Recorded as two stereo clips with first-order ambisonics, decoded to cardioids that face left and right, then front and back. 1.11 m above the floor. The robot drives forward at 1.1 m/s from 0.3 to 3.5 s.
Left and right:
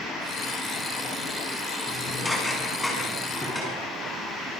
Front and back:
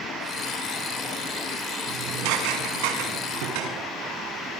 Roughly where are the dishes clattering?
Behind.